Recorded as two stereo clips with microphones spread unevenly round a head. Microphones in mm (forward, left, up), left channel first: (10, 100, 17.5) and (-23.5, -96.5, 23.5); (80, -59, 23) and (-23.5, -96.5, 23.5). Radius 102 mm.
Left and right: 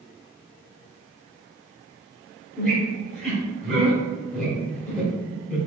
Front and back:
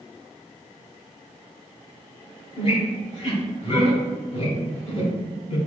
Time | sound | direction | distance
2.6 | a squeak | 5° right | 1.8 m